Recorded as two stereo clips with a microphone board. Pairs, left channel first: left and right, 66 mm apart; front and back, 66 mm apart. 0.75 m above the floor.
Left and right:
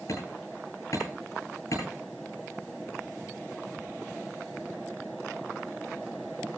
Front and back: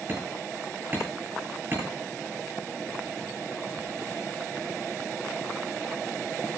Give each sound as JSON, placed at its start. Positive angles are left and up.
{"t": 0.1, "sound": "hammering", "azimuth_deg": 125, "distance_m": 10.0}